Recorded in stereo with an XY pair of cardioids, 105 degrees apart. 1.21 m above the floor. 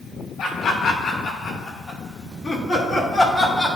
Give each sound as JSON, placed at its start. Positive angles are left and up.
{"t": 0.4, "sound": "laughter", "azimuth_deg": 70, "distance_m": 1.8}